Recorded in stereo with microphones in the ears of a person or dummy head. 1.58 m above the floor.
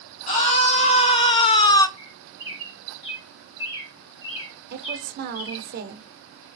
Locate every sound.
0.3 s a scream: 40° left (ahead or behind), 1.6 m; by 1.9 s 20° left (ahead or behind), 0.6 m
2.0 s a bird: 30° left (ahead or behind), 2 m
4.7 s a woman speaking: 55° right (ahead or behind), 0.7 m